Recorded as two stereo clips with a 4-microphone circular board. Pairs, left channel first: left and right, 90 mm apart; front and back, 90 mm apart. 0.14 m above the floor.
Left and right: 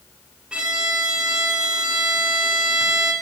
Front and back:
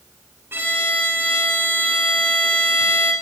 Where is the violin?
155° right, 1.2 m.